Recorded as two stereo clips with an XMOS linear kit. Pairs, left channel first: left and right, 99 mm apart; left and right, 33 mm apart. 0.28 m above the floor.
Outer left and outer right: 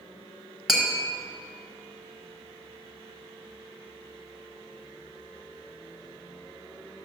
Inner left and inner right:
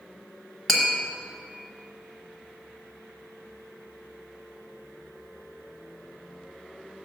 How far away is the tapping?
About 1.2 m.